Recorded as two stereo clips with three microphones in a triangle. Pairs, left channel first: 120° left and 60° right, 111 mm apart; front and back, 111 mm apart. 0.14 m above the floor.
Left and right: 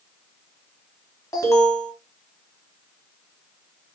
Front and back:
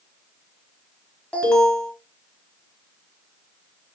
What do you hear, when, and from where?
1.3 s an alarm: 75° left, 1.2 m